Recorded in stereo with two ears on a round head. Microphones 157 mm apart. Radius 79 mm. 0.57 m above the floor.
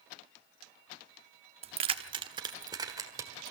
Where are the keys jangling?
35° right (ahead or behind), 0.8 m; by 3.5 s 15° right (ahead or behind), 2 m.